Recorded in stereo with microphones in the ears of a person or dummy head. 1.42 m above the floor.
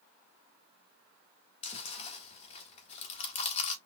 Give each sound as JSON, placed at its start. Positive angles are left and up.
{"t": 1.6, "sound": "chewing", "side_deg": 35, "distance_m": 1.2}